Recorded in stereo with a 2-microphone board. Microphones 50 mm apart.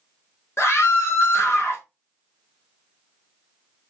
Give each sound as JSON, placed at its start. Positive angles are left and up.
{"t": 0.6, "sound": "a scream", "side_deg": 55, "distance_m": 1.0}